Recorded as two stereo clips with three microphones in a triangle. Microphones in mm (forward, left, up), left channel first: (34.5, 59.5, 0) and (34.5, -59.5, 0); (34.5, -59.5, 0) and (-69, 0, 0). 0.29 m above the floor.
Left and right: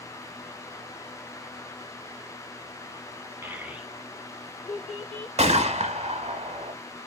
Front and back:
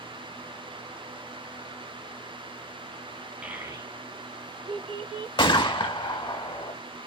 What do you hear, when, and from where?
3.4 s a child speaking: 140° right, 0.8 m; by 5.3 s 170° left, 2.0 m
5.4 s a gunshot: 75° right, 0.7 m